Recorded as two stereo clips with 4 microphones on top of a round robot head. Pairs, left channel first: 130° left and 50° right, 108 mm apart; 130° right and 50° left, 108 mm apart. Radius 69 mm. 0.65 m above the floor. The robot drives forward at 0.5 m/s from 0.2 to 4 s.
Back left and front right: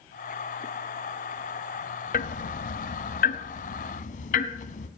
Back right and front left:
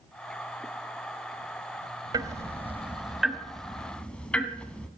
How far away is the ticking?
About 0.8 m.